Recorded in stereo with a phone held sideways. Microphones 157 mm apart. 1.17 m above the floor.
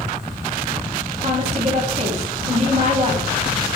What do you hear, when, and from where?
1.2 s a woman speaking: 40° right (ahead or behind), 2.5 m